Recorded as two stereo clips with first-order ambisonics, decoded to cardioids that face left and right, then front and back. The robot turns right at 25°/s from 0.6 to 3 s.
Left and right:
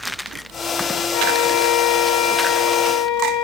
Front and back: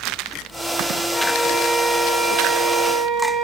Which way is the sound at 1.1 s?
75° left.